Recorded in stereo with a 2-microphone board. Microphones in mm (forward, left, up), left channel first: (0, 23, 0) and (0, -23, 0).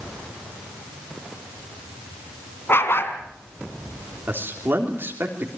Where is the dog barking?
55° left (ahead or behind), 3.5 m.